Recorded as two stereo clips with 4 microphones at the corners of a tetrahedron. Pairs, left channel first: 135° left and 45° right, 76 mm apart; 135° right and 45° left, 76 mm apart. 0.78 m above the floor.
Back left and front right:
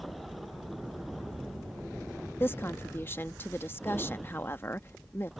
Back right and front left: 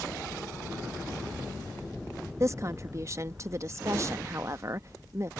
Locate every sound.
2.4 s a woman speaking: 85° left